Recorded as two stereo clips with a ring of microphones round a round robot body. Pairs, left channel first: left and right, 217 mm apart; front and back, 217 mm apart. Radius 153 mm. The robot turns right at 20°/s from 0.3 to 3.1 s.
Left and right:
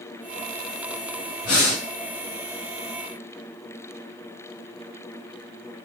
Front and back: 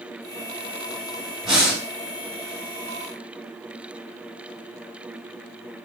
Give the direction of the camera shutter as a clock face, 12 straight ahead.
I don't hear a camera shutter.